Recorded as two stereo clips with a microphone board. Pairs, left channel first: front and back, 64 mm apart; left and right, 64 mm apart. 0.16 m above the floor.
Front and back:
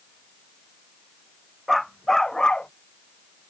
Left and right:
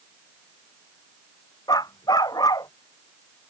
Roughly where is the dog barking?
Left.